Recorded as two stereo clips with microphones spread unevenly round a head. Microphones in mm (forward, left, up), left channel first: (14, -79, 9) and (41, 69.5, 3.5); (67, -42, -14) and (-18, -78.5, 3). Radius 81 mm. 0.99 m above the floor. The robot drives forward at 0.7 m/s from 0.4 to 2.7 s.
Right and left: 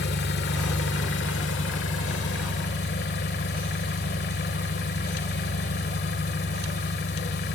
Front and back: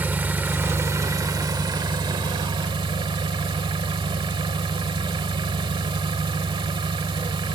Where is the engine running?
90° right, 1.8 m; by 7.5 s 130° right, 2.5 m.